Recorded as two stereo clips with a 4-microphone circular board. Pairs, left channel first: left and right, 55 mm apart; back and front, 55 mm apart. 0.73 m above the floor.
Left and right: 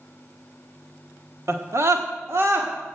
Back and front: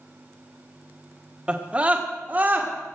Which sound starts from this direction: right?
A scream, at 1.5 s.